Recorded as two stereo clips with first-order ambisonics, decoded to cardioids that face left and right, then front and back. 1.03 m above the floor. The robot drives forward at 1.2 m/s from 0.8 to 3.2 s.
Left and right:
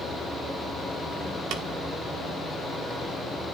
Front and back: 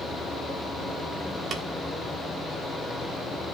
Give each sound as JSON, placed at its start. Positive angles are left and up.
{"t": 1.5, "sound": "tapping", "azimuth_deg": -120, "distance_m": 1.2}